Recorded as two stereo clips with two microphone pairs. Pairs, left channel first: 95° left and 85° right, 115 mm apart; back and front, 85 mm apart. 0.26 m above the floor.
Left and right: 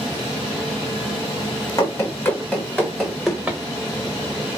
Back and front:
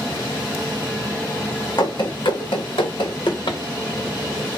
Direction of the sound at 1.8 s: 155° left.